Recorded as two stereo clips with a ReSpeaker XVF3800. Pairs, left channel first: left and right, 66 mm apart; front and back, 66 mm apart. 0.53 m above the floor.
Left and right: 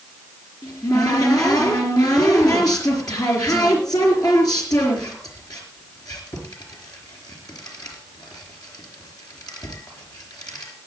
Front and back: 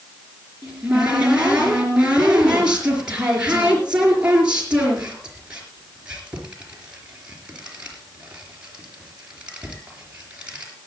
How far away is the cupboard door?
About 4 m.